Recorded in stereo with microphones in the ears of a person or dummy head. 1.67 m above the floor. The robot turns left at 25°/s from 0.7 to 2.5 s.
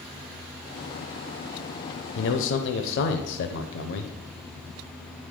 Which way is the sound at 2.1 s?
70° left (ahead or behind).